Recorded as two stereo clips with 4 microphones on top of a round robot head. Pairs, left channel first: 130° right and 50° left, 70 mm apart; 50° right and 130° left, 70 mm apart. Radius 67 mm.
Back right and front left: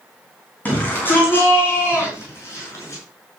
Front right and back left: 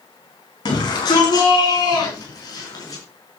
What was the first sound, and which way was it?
A shout, 65° right.